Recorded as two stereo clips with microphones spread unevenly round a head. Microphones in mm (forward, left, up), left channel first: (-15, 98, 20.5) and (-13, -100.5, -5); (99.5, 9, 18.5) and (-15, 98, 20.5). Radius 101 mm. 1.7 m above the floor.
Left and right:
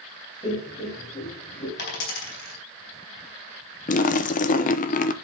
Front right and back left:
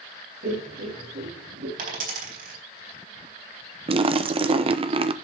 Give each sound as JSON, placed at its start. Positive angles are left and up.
{"t": 0.4, "sound": "laughter", "azimuth_deg": 150, "distance_m": 4.5}
{"t": 1.8, "sound": "a dropped coin", "azimuth_deg": 125, "distance_m": 4.0}
{"t": 3.9, "sound": "a splash", "azimuth_deg": 110, "distance_m": 0.8}